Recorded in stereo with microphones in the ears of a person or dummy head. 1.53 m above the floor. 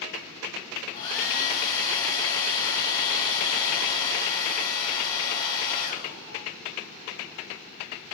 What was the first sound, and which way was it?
A hair dryer, 25° left (ahead or behind).